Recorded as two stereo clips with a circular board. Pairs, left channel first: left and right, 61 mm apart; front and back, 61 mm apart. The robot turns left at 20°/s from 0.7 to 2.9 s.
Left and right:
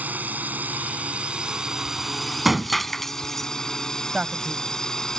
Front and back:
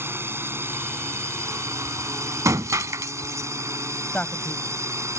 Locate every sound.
0.0 s a drone: 145° right; by 5.2 s 170° left
2.5 s breaking glass: 175° right; by 3.5 s 175° left
4.1 s a man speaking: 30° right